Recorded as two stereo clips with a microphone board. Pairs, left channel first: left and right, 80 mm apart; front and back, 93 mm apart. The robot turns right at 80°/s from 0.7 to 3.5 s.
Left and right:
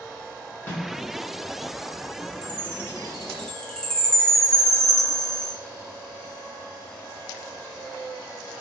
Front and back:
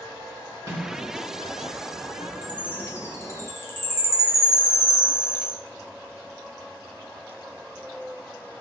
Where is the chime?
70° right, 0.6 m; by 5.5 s 15° left, 0.6 m.